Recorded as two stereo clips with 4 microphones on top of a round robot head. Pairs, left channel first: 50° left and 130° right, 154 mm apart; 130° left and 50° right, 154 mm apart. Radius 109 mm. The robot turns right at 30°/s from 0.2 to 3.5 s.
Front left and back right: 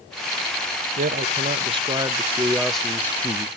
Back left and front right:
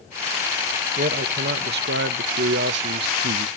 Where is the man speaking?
90° right, 0.7 m; by 3.5 s 15° right, 0.7 m.